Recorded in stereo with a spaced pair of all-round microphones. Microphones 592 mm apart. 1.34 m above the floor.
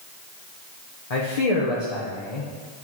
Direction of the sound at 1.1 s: 70° left (ahead or behind).